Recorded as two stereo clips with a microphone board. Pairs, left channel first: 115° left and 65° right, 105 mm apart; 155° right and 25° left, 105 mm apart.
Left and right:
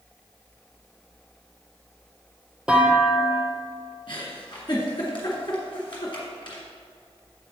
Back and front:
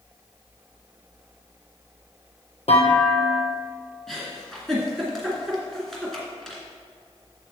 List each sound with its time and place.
2.7 s a clunk: 145° right, 1.2 m
4.1 s a giggle: 120° left, 2 m